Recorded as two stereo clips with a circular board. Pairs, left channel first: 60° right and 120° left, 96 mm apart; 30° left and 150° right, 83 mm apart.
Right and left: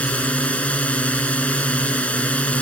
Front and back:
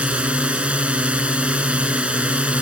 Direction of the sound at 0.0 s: 105° right.